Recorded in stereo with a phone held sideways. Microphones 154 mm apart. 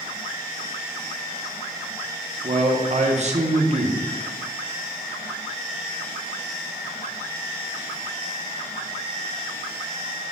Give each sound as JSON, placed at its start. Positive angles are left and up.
{"t": 2.4, "sound": "a man speaking", "side_deg": -45, "distance_m": 0.6}